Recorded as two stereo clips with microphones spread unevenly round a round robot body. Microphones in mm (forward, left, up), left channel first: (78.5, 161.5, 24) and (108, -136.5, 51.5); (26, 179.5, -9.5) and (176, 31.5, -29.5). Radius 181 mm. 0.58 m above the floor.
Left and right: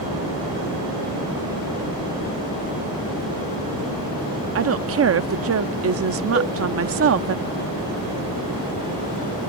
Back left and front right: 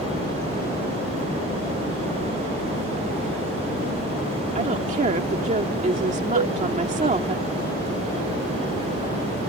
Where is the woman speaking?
70° right.